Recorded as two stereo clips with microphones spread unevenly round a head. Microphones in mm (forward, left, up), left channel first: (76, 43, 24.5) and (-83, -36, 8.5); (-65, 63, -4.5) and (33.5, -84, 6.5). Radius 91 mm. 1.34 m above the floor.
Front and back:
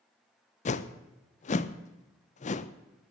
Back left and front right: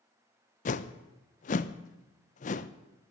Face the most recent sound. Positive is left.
turn(degrees=75)